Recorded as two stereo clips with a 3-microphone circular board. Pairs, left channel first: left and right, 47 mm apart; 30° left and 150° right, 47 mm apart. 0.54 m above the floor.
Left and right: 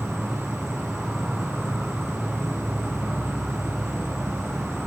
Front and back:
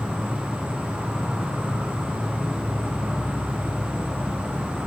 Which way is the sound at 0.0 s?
Straight behind.